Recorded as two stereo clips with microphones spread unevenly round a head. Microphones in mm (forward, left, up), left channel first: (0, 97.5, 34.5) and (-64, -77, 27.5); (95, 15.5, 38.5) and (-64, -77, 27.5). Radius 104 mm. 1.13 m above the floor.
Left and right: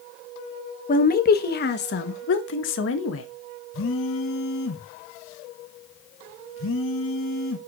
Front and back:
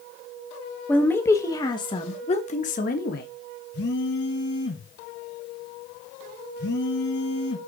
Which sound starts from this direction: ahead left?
A phone buzzing, at 3.7 s.